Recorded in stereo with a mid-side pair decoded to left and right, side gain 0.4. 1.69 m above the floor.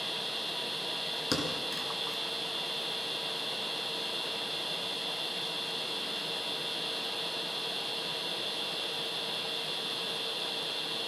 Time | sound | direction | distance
0.0 | a machine running | straight ahead | 1.4 m
1.3 | a thud | 25° left | 4.5 m